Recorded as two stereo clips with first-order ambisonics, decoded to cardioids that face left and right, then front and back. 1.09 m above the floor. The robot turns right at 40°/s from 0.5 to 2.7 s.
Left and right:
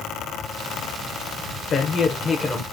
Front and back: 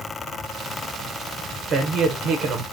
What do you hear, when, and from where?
1.7 s a man speaking: 145° left, 0.7 m; by 2.6 s straight behind, 0.7 m